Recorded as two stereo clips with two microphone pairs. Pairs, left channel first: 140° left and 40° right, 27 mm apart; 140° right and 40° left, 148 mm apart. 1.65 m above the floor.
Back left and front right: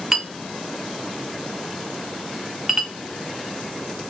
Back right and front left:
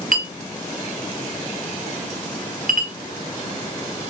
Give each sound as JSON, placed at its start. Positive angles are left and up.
{"t": 0.1, "sound": "a clink", "azimuth_deg": 40, "distance_m": 1.5}